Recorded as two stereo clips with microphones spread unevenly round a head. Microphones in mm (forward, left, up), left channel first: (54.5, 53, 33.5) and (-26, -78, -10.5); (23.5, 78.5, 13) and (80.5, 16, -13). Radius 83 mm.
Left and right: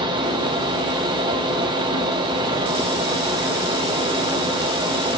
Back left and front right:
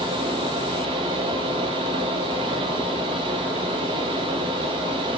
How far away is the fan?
About 0.8 m.